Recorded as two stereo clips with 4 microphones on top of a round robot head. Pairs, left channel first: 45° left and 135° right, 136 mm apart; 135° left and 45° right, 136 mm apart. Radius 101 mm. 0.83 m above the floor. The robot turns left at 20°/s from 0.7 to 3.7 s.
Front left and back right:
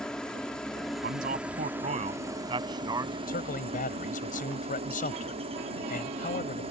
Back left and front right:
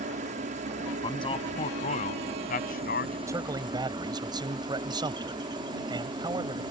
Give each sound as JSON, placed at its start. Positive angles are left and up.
{"t": 0.0, "sound": "a helicopter", "azimuth_deg": -40}
{"t": 1.0, "sound": "a man speaking", "azimuth_deg": -165}
{"t": 3.3, "sound": "a man speaking", "azimuth_deg": 25}